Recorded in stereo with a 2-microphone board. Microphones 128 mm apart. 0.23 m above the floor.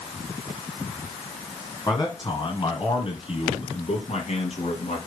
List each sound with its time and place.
1.9 s a man speaking: 30° left (ahead or behind), 2 m; by 5.0 s 60° left (ahead or behind), 3 m